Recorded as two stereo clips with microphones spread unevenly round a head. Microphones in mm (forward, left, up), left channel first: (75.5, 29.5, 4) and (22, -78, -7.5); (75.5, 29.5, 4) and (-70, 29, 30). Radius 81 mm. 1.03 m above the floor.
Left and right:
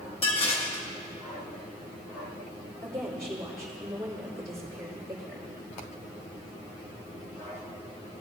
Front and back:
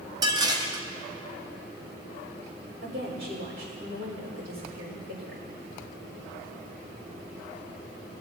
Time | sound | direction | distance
0.2 | dishes clattering | 120° left | 0.9 m
2.8 | a woman speaking | 170° left | 4 m